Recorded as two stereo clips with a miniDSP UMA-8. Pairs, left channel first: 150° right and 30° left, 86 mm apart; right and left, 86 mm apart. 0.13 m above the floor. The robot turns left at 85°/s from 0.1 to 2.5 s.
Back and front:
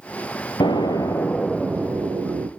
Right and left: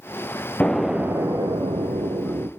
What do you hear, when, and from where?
0.6 s an explosion: 165° right, 1.5 m; by 2.5 s 35° left, 1.5 m